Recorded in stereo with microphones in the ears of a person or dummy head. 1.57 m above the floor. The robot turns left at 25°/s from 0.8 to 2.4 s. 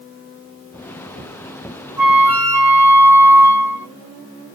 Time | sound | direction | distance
2.0 | a flute | centre (ahead or behind) | 1.2 m